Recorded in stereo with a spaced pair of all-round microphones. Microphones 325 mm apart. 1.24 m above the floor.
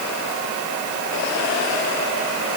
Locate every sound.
Only background noise.